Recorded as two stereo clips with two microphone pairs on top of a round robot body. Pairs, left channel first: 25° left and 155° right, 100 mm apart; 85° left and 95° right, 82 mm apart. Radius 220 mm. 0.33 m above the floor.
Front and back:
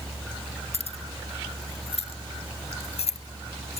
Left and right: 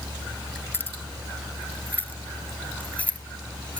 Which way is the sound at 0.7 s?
20° left.